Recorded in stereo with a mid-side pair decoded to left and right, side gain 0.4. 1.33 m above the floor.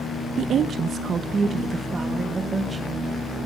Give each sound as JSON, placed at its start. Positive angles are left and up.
{"t": 0.4, "sound": "a woman speaking", "azimuth_deg": -70, "distance_m": 0.8}